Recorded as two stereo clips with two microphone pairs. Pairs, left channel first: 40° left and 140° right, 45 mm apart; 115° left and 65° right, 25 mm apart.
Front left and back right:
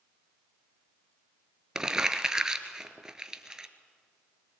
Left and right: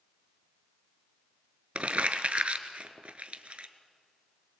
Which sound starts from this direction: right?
Crumpling, at 1.8 s.